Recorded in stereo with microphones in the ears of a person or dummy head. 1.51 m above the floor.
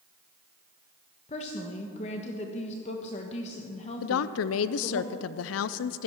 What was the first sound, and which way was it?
A woman speaking, 35° left (ahead or behind).